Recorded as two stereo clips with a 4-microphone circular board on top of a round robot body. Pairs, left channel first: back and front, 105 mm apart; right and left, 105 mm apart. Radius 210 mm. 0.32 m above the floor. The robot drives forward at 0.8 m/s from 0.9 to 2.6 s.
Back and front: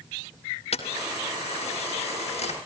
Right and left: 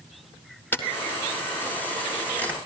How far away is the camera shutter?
About 3 m.